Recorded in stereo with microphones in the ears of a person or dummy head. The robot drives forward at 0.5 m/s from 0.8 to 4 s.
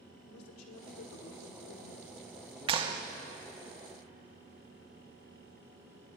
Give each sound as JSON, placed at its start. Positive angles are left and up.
{"t": 0.3, "sound": "a man speaking", "side_deg": 90, "distance_m": 1.1}
{"t": 2.7, "sound": "a clap", "side_deg": -25, "distance_m": 0.5}